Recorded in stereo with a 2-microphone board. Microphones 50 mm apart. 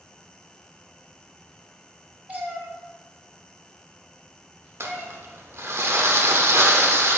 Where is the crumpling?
60° right (ahead or behind), 0.7 m.